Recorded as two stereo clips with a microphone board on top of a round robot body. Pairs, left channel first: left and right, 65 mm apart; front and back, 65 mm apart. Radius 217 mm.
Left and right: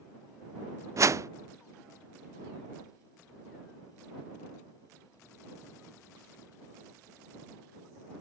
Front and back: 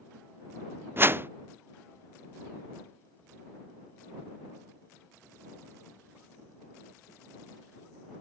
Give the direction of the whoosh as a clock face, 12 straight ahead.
4 o'clock.